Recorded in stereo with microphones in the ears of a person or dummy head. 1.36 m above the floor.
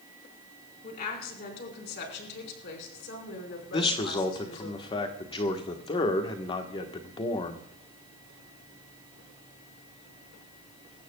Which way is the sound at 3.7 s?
25° left (ahead or behind).